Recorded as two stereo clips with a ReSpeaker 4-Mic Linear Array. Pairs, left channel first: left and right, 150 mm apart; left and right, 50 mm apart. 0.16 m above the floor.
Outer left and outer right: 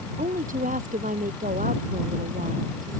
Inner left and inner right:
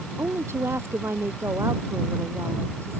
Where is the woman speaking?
65° right (ahead or behind).